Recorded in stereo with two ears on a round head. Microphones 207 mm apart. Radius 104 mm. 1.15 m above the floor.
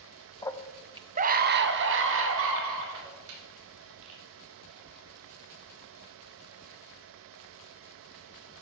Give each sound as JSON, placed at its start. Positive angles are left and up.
{"t": 0.4, "sound": "a scream", "side_deg": 15, "distance_m": 0.9}